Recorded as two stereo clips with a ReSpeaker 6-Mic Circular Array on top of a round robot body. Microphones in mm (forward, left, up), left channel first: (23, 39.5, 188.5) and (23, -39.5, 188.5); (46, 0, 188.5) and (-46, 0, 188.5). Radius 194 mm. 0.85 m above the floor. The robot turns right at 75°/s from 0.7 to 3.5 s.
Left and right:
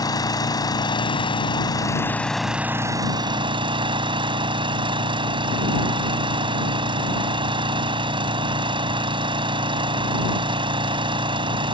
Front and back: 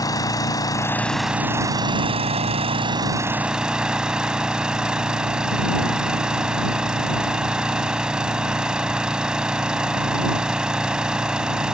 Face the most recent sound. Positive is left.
turn(degrees=-100)